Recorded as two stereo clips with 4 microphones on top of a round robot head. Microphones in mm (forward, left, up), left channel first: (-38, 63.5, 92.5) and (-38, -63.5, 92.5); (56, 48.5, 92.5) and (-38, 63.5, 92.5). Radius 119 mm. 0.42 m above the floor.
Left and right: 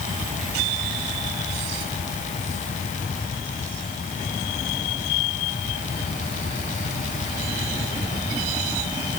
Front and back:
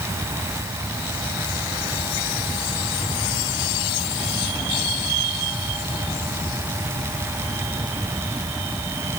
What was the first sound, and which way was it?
Only background noise.